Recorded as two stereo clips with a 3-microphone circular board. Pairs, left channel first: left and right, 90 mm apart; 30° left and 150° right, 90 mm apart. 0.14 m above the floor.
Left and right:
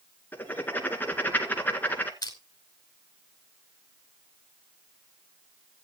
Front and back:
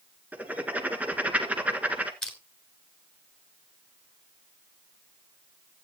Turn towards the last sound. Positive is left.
turn(degrees=110)